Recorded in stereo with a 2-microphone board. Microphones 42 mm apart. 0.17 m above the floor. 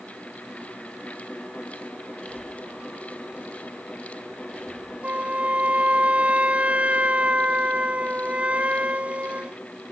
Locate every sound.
2.2 s breathing: 10° left (ahead or behind)
5.0 s a flute: 30° right (ahead or behind)